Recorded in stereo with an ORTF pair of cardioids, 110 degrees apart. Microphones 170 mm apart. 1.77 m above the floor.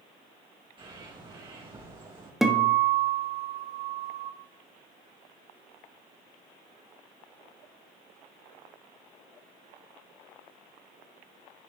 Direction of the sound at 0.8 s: 30° right.